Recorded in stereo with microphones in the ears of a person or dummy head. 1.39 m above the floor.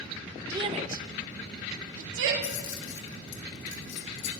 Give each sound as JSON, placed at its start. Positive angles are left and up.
{"t": 0.5, "sound": "a shout", "side_deg": -15, "distance_m": 0.8}
{"t": 2.4, "sound": "keys jangling", "side_deg": 70, "distance_m": 1.8}